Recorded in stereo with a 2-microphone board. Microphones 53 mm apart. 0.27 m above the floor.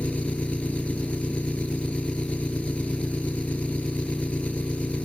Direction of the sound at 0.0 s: 20° left (ahead or behind).